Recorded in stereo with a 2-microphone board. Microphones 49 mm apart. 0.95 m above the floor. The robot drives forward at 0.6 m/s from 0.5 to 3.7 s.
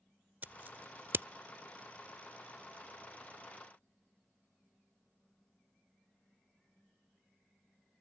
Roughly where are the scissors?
Right.